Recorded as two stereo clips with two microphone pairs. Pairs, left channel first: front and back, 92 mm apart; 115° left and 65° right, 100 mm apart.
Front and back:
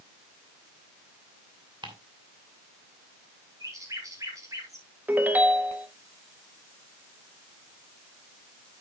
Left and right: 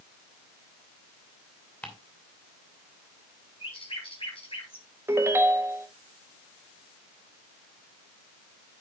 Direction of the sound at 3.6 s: 135° left.